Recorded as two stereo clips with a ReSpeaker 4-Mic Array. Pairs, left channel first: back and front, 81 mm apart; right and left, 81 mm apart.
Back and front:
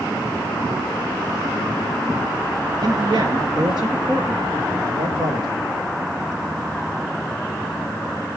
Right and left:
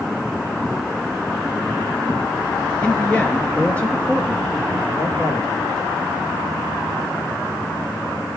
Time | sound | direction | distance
2.8 | a man speaking | 15° right | 2 m